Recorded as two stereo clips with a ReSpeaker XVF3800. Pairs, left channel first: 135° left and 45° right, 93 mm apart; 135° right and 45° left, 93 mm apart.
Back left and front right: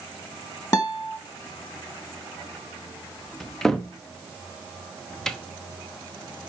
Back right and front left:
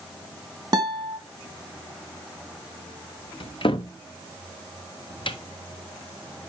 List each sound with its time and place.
0.7 s a guitar: 85° left, 1.4 m
3.4 s a cupboard door: 140° right, 0.7 m